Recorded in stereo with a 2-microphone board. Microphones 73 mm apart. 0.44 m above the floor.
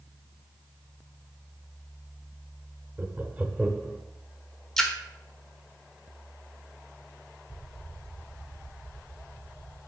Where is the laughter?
20° right (ahead or behind), 0.8 m; by 4.0 s 5° left (ahead or behind), 1.0 m.